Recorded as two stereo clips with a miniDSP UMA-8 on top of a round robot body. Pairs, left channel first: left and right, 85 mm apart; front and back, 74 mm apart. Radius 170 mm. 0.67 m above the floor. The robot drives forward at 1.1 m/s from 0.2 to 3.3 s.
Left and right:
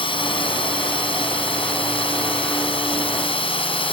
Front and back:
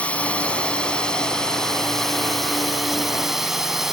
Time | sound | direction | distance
0.0 | a drone | 75° left | ?